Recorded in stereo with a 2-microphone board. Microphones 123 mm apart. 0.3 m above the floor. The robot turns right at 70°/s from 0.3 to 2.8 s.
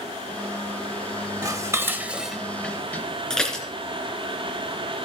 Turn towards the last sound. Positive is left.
turn(degrees=5)  # may be behind; listen again after turning